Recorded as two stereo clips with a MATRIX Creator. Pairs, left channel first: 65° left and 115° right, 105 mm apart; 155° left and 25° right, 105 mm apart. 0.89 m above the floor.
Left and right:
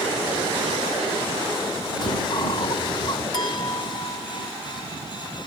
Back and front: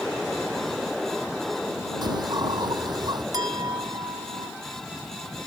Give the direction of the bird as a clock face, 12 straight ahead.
11 o'clock.